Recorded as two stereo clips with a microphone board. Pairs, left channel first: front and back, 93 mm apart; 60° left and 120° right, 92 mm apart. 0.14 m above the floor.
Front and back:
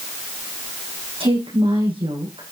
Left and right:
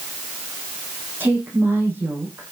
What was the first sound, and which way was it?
A woman speaking, 175° left.